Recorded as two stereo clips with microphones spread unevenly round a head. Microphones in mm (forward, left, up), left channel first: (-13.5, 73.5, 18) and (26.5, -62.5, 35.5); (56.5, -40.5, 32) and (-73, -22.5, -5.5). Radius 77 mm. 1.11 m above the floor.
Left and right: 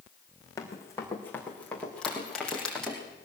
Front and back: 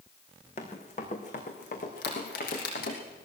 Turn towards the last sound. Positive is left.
turn(degrees=20)